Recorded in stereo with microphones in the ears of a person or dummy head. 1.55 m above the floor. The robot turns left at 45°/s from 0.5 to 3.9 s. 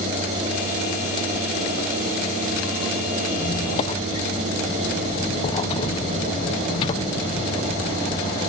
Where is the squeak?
30° left (ahead or behind); by 8.5 s 20° left (ahead or behind).